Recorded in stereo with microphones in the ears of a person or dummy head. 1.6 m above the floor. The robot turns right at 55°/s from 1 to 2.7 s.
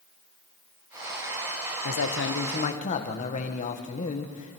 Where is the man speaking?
95° left, 1.6 m; by 4.6 s 140° left, 1.6 m.